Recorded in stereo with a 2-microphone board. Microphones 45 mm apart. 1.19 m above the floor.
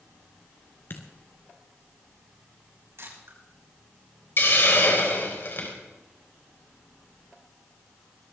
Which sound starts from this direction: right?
A camera shutter, at 3.0 s.